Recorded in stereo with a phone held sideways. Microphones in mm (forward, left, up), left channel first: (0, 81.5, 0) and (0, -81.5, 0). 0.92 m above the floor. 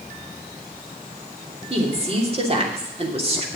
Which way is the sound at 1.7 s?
40° right (ahead or behind).